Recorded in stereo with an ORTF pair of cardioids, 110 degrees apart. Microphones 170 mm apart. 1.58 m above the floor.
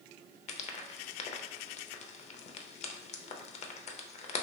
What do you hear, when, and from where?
0.5 s frying: 40° left, 0.5 m